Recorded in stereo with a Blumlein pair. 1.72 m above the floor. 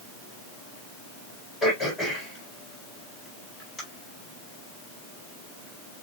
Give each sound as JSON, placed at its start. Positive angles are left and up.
{"t": 1.6, "sound": "throat clearing", "azimuth_deg": 10, "distance_m": 4.0}